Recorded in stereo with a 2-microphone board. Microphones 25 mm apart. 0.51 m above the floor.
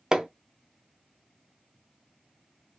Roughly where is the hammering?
Right.